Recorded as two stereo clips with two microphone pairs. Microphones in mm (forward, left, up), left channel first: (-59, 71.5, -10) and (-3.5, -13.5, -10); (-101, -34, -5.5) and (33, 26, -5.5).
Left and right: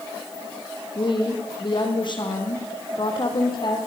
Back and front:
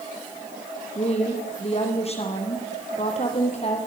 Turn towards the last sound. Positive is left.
turn(degrees=160)